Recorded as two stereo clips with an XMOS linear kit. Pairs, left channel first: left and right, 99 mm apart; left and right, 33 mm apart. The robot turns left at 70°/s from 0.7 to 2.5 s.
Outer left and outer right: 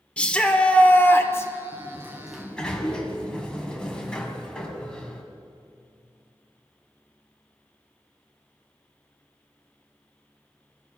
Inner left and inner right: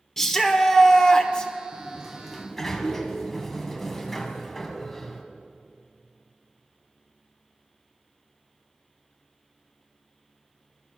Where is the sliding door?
135° right, 1.4 m; by 5.2 s 170° left, 1.4 m.